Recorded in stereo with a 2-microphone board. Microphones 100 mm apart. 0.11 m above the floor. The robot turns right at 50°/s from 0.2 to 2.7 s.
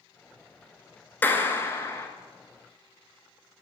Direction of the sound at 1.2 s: 20° left (ahead or behind).